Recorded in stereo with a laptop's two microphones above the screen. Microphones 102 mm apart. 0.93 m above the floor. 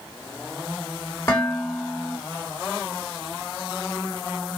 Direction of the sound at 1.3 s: 30° left (ahead or behind).